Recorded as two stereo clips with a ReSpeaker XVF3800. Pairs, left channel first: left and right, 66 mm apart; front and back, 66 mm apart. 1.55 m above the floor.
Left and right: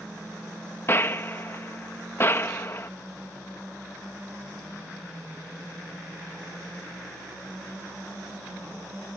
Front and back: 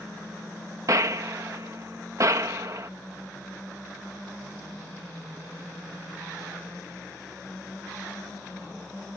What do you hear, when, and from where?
0.9 s a gunshot: 145° left